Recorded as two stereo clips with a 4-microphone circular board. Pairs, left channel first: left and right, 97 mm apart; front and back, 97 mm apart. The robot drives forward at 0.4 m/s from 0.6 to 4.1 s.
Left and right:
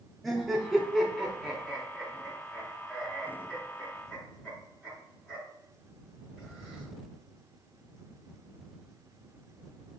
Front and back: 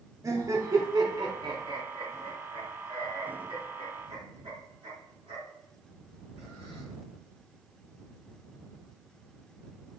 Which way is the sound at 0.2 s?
Straight behind.